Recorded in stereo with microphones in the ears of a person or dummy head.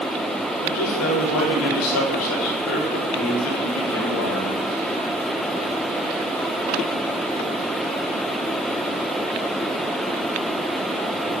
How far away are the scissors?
I don't hear scissors.